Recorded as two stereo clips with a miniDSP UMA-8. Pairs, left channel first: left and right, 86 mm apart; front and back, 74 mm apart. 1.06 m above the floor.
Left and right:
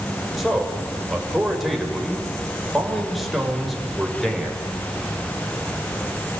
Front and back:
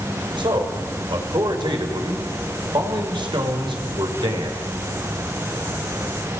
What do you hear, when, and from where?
0.4 s a man speaking: straight behind, 5 m